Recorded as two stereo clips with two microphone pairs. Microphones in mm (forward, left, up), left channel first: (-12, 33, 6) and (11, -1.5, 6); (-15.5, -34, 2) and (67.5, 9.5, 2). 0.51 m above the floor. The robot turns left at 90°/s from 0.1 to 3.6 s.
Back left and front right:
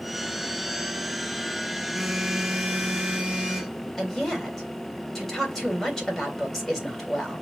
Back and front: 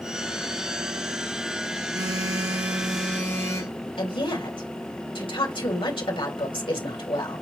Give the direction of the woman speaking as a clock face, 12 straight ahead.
5 o'clock.